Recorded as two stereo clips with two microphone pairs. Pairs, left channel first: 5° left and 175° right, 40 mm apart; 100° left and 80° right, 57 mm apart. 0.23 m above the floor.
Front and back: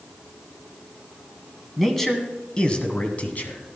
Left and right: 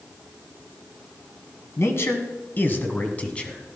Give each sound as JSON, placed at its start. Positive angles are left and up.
{"t": 1.8, "sound": "a man speaking", "azimuth_deg": 90, "distance_m": 1.5}